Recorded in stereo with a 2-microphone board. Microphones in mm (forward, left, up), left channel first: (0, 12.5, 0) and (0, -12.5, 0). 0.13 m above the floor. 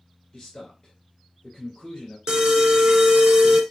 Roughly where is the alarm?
Right.